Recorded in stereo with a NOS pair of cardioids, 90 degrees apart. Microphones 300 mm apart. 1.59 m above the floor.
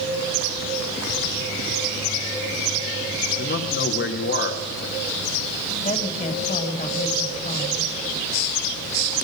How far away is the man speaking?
About 3.5 m.